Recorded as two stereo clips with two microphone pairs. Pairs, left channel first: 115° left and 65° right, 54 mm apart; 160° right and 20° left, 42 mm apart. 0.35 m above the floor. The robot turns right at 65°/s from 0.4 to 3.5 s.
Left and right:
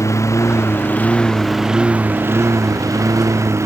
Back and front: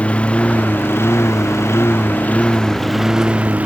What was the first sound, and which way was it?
A lawn mower, 140° left.